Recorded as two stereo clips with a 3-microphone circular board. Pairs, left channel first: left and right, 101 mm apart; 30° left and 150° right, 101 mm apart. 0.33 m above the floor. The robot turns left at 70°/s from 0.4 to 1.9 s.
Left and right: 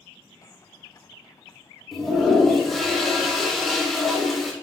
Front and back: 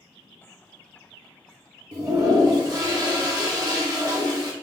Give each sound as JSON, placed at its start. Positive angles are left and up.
{"t": 1.9, "sound": "a toilet flushing", "azimuth_deg": 175, "distance_m": 0.9}